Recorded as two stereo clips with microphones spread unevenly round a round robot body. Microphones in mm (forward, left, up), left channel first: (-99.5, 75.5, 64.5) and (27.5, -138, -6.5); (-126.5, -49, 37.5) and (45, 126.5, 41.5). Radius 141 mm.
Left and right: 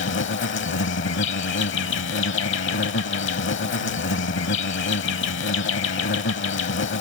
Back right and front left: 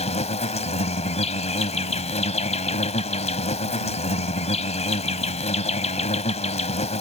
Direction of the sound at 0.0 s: 160° left.